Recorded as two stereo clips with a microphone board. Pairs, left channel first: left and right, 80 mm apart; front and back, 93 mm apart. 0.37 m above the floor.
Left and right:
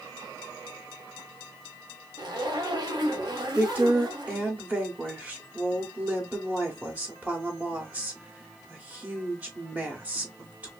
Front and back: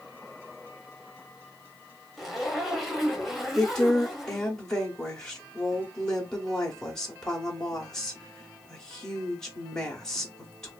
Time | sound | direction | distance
2.2 | a zipper | 90° right | 0.7 m
3.5 | a woman speaking | 70° right | 0.8 m